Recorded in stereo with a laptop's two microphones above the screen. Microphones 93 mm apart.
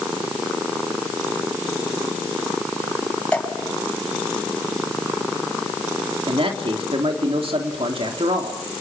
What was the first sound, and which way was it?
Dripping, 10° left (ahead or behind).